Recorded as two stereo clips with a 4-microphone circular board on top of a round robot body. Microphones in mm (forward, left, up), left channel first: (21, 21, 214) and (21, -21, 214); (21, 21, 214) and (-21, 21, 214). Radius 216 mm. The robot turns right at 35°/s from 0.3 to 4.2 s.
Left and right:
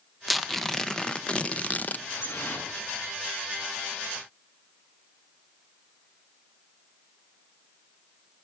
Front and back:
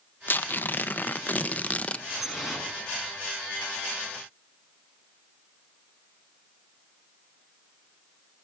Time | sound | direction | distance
0.3 | tearing paper | 5° right | 1.1 m
2.1 | dripping | 85° left | 6 m